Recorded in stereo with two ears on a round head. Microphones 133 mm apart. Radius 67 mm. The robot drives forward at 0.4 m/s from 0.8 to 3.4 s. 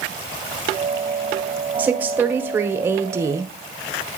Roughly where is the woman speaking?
Centre.